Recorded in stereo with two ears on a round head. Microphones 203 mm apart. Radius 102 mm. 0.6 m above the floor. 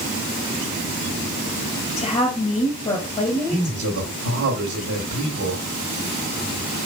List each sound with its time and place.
2.0 s a woman speaking: 30° left (ahead or behind), 3 m
3.5 s a man speaking: 55° right (ahead or behind), 2 m